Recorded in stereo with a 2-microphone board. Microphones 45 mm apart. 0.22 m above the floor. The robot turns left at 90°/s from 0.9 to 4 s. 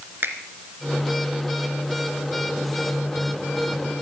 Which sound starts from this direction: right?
A finger snap, at 0.2 s.